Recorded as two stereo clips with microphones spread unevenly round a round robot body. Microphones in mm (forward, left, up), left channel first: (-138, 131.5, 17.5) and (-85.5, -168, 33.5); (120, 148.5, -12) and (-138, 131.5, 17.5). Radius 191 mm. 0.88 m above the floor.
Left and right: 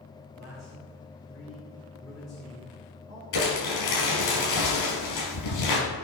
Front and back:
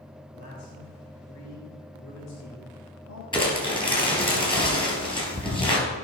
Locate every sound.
0.3 s a man speaking: 10° left, 3 m
3.3 s crumpling: 75° left, 4 m